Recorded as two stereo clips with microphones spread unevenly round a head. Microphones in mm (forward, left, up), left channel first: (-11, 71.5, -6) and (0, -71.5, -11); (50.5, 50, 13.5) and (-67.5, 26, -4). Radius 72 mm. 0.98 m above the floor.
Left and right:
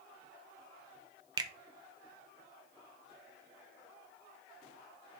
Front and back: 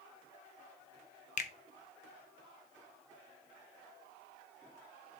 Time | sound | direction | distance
1.4 | a finger snap | 25° right | 0.5 m